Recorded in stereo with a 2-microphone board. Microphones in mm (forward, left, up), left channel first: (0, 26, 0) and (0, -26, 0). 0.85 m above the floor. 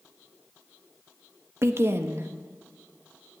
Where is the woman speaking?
50° right (ahead or behind), 0.9 m.